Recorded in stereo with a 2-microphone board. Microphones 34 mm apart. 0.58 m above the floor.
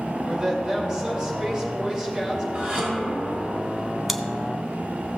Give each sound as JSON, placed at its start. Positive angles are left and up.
{"t": 0.3, "sound": "a woman speaking", "side_deg": -20, "distance_m": 2.0}
{"t": 2.5, "sound": "dishes clattering", "side_deg": -45, "distance_m": 2.5}
{"t": 4.1, "sound": "chewing", "side_deg": 0, "distance_m": 0.5}